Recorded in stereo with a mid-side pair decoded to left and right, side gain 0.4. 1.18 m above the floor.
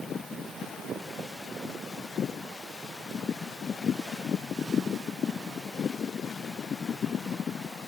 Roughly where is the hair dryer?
No hair dryer in this recording.